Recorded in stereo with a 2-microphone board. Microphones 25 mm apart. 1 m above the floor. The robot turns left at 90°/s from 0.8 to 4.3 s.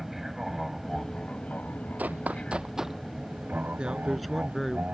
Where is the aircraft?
175° right; by 4.9 s 130° right.